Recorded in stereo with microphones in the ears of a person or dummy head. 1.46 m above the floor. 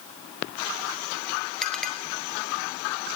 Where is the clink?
5° left (ahead or behind), 3 m.